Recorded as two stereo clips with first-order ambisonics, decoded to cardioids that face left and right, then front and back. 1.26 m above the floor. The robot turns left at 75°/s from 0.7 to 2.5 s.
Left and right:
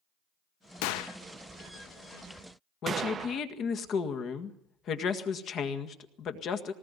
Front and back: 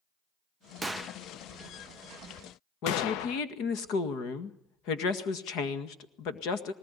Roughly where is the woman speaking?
Ahead left.